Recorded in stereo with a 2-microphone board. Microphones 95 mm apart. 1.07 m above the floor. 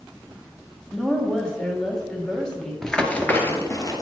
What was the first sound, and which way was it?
A woman speaking, 10° left (ahead or behind).